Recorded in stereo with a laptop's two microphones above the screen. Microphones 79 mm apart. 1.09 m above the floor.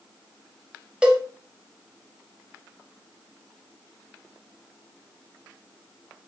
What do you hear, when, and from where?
1.0 s a cowbell: 15° right (ahead or behind), 0.6 m